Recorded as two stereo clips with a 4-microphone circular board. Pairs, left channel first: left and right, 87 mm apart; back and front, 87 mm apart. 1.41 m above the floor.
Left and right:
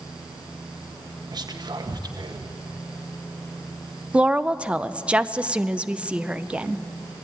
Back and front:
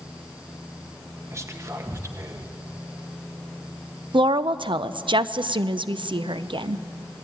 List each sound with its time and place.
1.3 s whispering: 55° right, 1.5 m
4.1 s a woman speaking: 15° right, 0.6 m